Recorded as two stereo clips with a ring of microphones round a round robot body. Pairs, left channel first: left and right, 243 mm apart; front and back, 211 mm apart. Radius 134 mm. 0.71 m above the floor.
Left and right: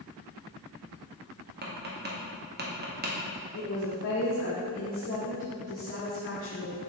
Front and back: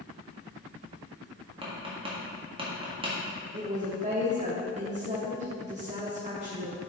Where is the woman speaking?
125° left, 1.2 m.